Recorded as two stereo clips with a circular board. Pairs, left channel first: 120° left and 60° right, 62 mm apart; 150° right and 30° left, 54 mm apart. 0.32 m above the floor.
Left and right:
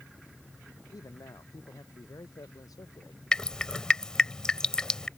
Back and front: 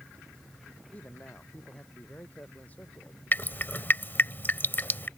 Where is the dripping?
165° right.